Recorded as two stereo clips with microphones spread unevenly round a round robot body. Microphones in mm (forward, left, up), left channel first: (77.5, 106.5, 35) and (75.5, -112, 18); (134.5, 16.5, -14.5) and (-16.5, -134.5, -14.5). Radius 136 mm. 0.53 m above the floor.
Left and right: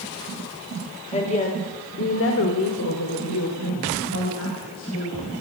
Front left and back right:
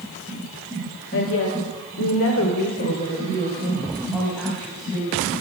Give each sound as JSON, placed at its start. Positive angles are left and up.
{"t": 1.1, "sound": "a woman speaking", "azimuth_deg": 25, "distance_m": 2.5}